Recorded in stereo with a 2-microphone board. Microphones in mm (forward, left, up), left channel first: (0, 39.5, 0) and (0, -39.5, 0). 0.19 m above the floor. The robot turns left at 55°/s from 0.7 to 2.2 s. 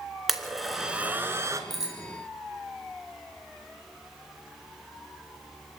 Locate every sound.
0.3 s a blender: centre (ahead or behind), 2.5 m; by 1.6 s 40° right (ahead or behind), 2.5 m
1.7 s a bicycle bell: centre (ahead or behind), 5.5 m; by 2.0 s 15° right (ahead or behind), 5.5 m